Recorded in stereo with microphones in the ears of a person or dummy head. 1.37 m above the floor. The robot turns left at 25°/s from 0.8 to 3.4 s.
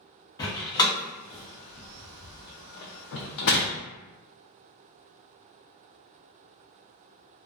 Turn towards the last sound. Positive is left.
turn(degrees=70)  # may be behind; listen again after turning